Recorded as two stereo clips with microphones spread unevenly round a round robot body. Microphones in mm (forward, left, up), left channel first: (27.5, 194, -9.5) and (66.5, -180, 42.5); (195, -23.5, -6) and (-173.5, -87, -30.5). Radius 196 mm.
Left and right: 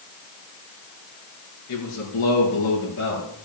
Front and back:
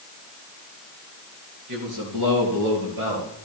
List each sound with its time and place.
1.7 s a man speaking: 145° left, 3.5 m; by 3.3 s 155° left, 5 m